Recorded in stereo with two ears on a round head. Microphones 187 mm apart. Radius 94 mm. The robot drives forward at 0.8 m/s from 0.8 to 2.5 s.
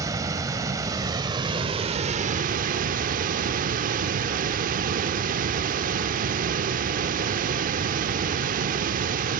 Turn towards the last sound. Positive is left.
turn(degrees=-40)  # may be behind; listen again after turning